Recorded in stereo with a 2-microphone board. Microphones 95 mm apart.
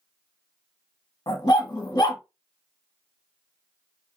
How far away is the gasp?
No gasp in this recording.